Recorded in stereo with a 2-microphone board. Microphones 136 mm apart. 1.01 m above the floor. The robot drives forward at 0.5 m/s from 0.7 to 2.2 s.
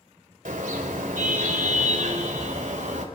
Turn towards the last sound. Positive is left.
turn(degrees=-70)  # may be behind; listen again after turning